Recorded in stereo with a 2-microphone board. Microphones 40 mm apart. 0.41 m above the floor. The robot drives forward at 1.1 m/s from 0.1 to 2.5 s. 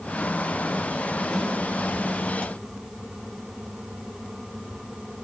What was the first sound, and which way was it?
A snare drum, centre (ahead or behind).